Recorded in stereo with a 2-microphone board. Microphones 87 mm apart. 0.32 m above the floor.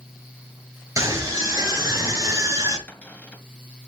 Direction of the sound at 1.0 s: 35° right (ahead or behind).